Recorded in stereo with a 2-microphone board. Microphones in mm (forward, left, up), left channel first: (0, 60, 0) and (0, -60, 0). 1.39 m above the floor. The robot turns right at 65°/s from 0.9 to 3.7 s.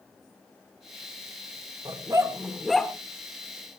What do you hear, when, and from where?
1.9 s a dog barking: 40° right (ahead or behind), 1.3 m; by 2.9 s 10° left (ahead or behind), 1.3 m